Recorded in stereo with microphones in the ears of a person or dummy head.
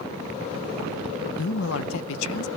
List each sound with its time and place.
1.4 s a man speaking: 85° left, 0.6 m